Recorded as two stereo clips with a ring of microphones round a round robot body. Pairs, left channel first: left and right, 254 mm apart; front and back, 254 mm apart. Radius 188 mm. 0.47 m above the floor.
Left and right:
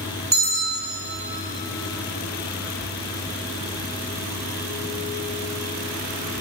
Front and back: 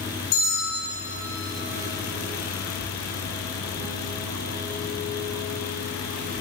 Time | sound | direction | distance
0.3 | a bell | 40° right | 6.5 m